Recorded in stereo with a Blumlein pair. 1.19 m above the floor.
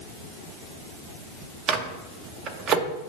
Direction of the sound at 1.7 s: 30° right.